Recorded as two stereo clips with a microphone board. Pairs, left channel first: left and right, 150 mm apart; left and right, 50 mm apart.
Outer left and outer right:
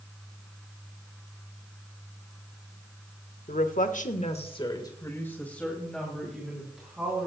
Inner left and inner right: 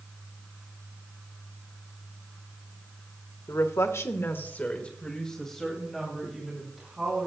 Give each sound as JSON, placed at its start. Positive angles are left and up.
{"t": 3.5, "sound": "a woman speaking", "side_deg": 65, "distance_m": 1.6}